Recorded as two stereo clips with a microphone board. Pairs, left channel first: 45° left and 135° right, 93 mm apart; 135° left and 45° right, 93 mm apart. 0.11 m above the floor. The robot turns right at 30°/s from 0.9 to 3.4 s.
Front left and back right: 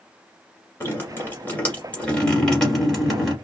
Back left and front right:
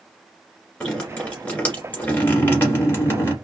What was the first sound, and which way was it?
Dripping, 65° left.